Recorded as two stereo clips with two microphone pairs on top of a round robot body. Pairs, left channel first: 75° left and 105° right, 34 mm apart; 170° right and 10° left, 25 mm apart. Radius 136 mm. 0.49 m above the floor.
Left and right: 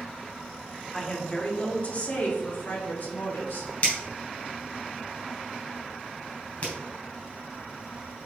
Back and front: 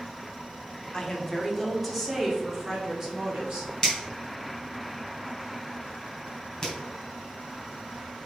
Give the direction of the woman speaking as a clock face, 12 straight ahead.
7 o'clock.